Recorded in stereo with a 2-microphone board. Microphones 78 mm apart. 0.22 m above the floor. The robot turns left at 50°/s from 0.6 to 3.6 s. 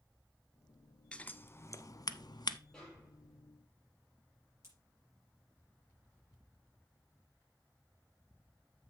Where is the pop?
40° right (ahead or behind), 5 m.